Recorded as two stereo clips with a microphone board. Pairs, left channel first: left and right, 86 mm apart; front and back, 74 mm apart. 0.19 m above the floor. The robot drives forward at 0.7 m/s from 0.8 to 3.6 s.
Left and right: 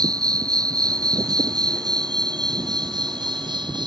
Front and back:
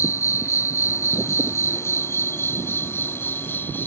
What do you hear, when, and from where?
0.0 s an insect: 50° right; by 3.9 s 60° right